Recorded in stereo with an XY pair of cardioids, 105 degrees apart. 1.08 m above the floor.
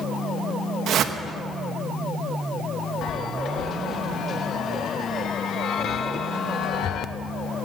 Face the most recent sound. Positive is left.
turn(degrees=60)